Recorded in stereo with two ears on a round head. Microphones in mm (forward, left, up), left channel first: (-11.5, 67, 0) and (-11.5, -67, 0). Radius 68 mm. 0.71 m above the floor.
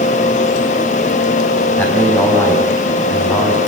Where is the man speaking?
10° left (ahead or behind), 6 m.